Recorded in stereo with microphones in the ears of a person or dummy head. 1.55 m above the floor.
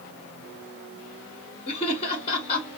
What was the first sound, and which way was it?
Laughter, 40° left (ahead or behind).